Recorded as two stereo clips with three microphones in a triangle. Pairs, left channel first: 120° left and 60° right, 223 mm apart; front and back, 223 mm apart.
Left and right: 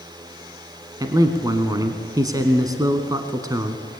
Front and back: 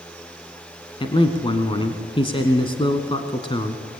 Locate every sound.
1.0 s a man speaking: 15° right, 1.3 m